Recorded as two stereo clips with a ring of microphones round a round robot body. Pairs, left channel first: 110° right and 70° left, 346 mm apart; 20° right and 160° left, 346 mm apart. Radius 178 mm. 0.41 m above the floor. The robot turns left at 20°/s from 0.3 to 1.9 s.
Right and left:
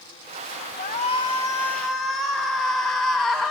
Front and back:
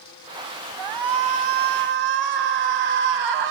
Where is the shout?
Straight behind, 2.5 m; by 3.5 s 160° left, 2.5 m.